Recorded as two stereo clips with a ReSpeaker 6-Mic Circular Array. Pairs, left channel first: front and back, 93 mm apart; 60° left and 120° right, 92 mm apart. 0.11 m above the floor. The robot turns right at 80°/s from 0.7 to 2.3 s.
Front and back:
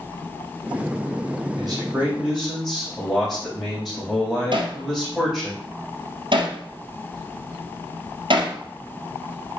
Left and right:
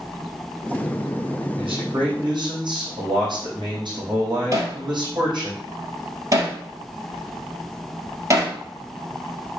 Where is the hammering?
170° right, 1.8 m.